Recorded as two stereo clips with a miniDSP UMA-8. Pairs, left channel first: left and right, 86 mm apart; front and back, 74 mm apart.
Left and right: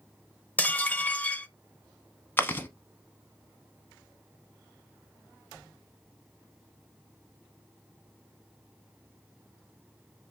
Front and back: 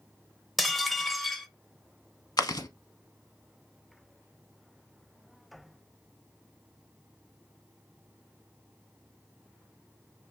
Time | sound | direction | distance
0.6 | dishes clattering | 90° left | 0.6 m
2.4 | chewing | 25° left | 0.7 m